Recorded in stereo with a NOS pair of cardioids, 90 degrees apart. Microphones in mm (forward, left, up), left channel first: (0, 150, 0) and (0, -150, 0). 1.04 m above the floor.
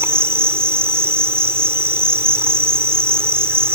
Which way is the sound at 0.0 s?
10° right.